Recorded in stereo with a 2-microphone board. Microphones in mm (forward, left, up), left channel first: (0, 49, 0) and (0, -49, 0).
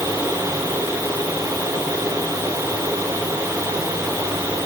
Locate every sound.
Only background noise.